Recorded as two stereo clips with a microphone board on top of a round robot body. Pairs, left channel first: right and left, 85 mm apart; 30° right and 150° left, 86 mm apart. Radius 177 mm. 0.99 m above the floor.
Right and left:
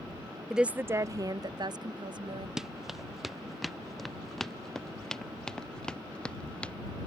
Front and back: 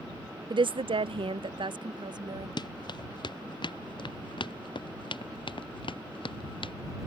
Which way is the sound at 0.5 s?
175° left.